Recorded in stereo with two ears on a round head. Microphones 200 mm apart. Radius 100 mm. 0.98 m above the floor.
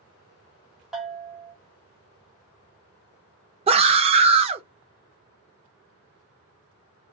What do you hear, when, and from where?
0.9 s a bell: centre (ahead or behind), 0.9 m
3.7 s a scream: 25° right (ahead or behind), 0.6 m